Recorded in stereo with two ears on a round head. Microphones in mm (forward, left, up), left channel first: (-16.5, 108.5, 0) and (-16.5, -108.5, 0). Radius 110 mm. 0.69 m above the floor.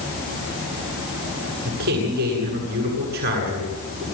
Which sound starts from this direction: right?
A man speaking, at 1.6 s.